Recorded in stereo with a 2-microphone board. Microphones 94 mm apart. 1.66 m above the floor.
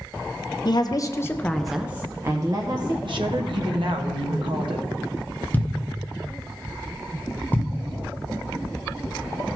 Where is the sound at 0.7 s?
50° left (ahead or behind), 0.8 m; by 2.9 s 50° right (ahead or behind), 1.0 m.